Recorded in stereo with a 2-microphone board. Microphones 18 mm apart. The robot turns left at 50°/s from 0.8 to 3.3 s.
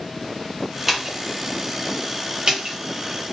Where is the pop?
10° right (ahead or behind), 0.7 m; by 2.8 s 40° right (ahead or behind), 0.7 m.